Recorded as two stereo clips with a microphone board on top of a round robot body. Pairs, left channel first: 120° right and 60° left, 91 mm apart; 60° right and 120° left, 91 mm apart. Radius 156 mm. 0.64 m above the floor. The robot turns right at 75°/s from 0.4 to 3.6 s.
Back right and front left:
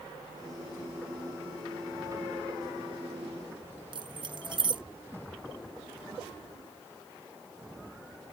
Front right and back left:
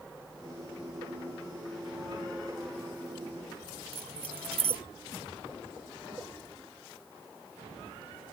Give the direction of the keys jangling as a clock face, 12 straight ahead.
9 o'clock.